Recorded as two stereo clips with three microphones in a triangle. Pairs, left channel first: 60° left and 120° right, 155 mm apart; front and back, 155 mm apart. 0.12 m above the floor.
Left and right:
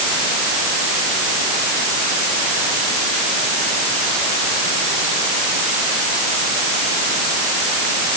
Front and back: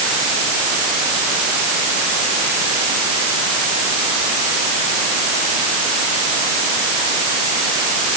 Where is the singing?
No singing in this recording.